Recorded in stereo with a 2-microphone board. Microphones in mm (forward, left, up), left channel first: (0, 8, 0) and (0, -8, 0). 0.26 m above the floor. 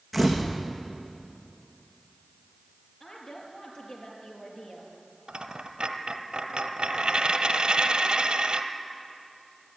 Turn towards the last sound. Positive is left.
turn(degrees=-80)